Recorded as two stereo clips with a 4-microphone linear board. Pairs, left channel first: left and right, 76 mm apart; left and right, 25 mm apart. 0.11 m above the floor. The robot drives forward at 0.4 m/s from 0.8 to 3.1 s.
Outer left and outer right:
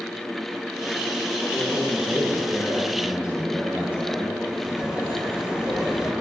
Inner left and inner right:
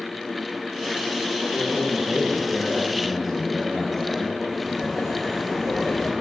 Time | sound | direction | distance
1.5 | a man speaking | 15° right (ahead or behind) | 3 m
4.5 | laughter | 10° right (ahead or behind) | 4.5 m